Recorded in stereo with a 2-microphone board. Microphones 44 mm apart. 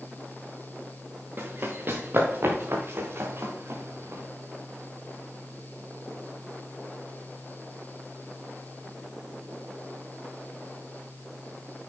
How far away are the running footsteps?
About 3 m.